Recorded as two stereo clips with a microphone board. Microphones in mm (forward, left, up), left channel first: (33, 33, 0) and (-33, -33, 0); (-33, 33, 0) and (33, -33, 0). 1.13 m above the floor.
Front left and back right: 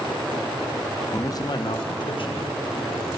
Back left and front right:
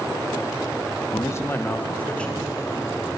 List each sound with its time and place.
1.1 s a man speaking: 95° left, 0.7 m; by 3.1 s 50° left, 2.0 m